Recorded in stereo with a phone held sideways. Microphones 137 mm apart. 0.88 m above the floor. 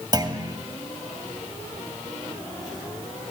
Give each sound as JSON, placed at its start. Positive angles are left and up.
{"t": 0.1, "sound": "a clunk", "side_deg": -30, "distance_m": 2.0}